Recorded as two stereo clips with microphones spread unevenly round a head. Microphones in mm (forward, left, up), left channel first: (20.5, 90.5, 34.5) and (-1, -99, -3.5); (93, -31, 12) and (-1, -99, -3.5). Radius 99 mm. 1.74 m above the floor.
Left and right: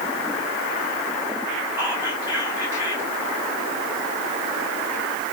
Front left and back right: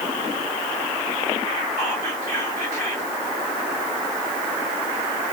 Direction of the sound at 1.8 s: Straight behind.